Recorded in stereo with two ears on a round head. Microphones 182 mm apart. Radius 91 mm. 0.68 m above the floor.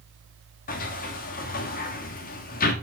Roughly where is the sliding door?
Left.